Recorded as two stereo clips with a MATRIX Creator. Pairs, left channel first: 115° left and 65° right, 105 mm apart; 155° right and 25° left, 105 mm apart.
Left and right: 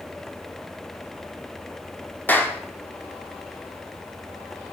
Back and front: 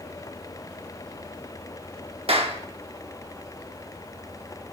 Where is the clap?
40° left, 1.7 m.